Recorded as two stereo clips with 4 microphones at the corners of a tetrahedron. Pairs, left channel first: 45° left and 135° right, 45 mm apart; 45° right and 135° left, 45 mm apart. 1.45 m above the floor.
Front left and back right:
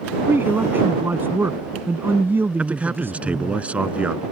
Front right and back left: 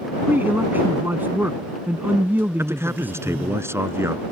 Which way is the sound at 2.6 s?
165° left.